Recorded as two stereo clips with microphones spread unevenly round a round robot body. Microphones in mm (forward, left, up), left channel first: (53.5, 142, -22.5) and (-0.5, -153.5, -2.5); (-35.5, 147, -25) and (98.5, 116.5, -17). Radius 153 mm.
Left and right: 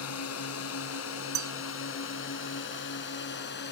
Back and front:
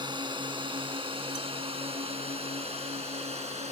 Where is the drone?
40° left; by 3.7 s 25° left.